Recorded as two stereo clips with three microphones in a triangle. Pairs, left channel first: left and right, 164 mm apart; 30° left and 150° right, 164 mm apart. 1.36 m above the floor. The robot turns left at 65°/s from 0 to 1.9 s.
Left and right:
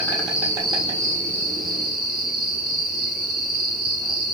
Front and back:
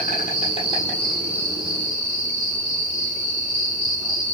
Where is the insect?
20° left, 5 m; by 4.3 s 105° right, 5 m.